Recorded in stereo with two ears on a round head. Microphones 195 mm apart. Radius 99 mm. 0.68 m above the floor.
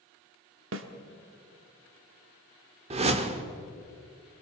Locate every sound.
0.7 s a snare drum: 60° right (ahead or behind), 1.4 m
2.9 s a whoosh: 30° right (ahead or behind), 1.3 m